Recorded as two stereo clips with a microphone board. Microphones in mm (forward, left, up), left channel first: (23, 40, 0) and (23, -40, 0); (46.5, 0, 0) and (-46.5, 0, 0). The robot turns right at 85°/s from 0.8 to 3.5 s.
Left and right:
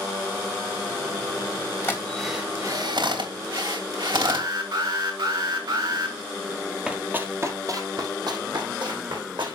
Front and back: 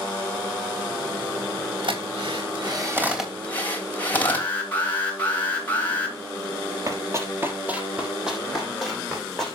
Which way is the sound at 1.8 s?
150° left.